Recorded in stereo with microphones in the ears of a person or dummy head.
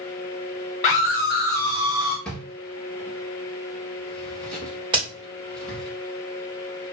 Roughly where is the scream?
Left.